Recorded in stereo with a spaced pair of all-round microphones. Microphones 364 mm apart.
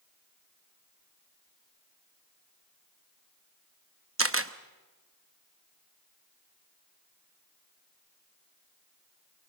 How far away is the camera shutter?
About 0.8 m.